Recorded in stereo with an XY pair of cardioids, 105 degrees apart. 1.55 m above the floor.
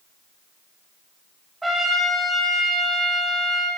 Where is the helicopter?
I don't hear a helicopter.